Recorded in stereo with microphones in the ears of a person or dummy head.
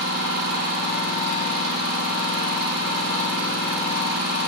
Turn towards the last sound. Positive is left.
turn(degrees=-55)  # may be behind; listen again after turning